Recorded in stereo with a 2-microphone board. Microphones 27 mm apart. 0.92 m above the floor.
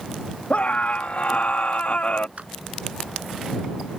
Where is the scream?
70° left (ahead or behind).